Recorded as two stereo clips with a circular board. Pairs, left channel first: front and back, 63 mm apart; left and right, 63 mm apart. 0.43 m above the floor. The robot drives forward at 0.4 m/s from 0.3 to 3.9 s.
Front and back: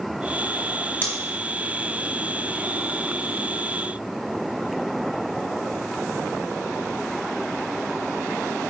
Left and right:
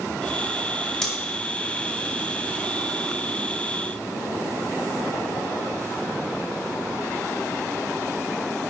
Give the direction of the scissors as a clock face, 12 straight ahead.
11 o'clock.